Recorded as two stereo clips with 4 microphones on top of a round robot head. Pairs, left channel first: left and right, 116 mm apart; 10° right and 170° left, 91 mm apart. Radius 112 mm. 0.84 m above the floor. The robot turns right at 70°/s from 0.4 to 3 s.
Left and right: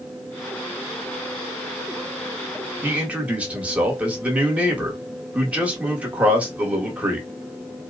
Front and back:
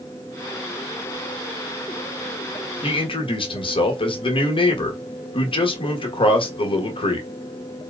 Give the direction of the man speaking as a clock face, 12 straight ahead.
1 o'clock.